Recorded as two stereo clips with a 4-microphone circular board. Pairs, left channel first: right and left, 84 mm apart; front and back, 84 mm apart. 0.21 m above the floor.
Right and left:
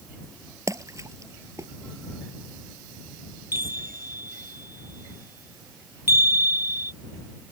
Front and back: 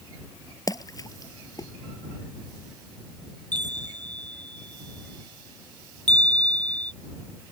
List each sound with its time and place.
0.7 s a splash: 40° left
3.5 s a chime: 150° left